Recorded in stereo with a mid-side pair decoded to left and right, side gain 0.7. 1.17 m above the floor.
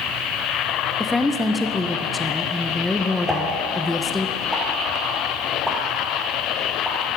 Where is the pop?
Straight ahead, 1.4 m.